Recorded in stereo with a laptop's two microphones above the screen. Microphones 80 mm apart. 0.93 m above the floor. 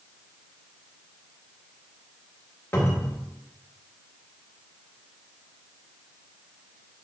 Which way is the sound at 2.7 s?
30° left (ahead or behind).